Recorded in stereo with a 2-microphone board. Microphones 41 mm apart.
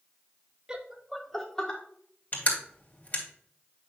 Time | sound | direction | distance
0.7 | laughter | 20° right (ahead or behind) | 0.9 m
2.3 | crushing | 40° left (ahead or behind) | 2 m